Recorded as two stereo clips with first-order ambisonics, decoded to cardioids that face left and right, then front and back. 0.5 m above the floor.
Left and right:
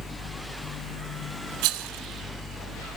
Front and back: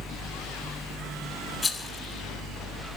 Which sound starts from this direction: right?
A rattle, at 1.6 s.